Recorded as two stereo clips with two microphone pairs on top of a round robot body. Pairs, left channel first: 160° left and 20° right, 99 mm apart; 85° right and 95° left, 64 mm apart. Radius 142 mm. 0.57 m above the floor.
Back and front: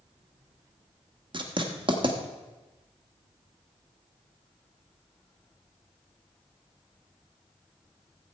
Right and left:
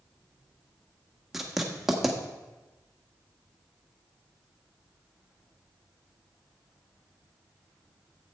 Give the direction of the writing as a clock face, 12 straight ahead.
12 o'clock.